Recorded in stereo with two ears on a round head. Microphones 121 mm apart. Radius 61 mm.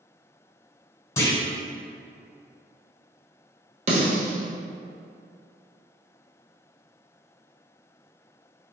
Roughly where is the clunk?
Left.